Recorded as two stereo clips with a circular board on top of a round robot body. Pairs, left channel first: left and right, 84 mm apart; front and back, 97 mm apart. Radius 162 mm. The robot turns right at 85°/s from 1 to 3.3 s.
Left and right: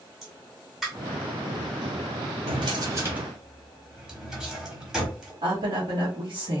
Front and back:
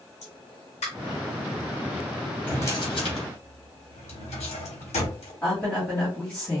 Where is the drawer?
80° right, 1.1 m; by 5.3 s 10° right, 1.1 m.